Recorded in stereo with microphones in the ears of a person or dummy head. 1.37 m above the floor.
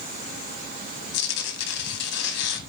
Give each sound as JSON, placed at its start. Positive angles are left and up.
{"t": 1.1, "sound": "tearing paper", "side_deg": 60, "distance_m": 1.4}